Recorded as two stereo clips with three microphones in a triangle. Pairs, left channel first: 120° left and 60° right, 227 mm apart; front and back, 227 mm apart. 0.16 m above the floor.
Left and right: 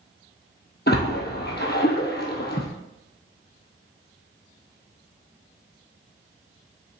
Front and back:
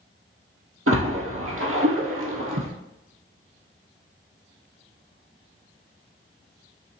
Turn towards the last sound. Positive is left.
turn(degrees=165)